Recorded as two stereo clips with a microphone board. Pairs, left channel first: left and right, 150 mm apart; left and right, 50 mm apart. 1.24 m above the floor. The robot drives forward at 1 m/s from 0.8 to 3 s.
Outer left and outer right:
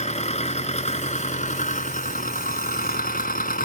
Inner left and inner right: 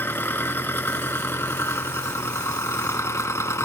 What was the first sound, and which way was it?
An engine running, 50° left (ahead or behind).